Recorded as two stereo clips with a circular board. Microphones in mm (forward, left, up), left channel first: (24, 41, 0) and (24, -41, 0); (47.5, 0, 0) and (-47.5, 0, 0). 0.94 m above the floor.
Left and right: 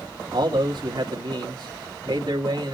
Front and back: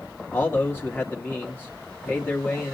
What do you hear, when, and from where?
0.3 s a man speaking: 70° right, 1.8 m